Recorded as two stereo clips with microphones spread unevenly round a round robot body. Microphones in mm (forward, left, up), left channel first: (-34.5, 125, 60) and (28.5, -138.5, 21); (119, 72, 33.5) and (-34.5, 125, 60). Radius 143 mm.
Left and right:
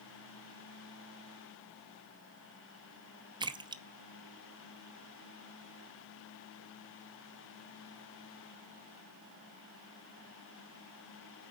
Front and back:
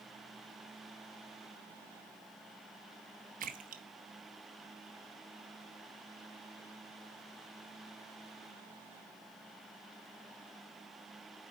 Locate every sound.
3.4 s a splash: 150° right, 0.6 m